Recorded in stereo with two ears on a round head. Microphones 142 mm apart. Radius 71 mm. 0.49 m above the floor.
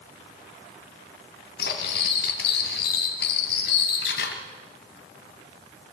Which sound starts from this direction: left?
Cutlery clinking, at 1.6 s.